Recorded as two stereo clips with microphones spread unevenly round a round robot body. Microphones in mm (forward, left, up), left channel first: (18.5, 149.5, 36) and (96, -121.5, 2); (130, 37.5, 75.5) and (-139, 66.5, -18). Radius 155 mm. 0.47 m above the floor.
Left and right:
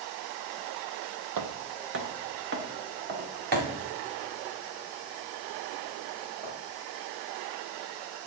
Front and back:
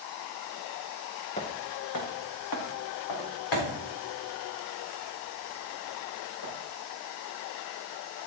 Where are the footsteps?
55° right, 0.9 m; by 6.5 s 15° right, 8.5 m.